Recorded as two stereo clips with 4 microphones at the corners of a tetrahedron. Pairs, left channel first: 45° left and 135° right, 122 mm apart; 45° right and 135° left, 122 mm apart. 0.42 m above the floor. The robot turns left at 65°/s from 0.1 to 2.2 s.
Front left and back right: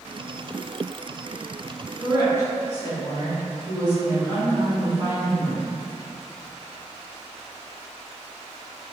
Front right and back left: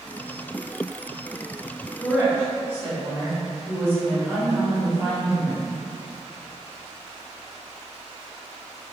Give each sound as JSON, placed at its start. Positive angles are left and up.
{"t": 2.0, "sound": "a woman speaking", "azimuth_deg": -155, "distance_m": 1.3}